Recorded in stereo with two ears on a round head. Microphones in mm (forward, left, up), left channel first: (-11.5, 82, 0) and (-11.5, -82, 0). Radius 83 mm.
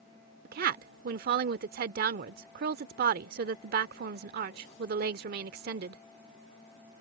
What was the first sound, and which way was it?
A woman speaking, 55° right (ahead or behind).